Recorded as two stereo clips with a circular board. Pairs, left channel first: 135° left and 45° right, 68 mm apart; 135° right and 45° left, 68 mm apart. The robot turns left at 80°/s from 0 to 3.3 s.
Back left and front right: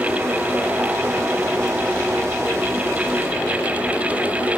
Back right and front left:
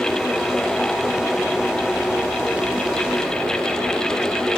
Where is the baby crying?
No baby crying in this recording.